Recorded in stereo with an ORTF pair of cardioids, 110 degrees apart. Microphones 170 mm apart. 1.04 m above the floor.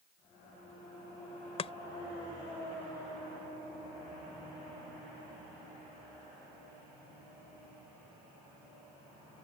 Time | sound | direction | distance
1.6 | chopping | 35° left | ?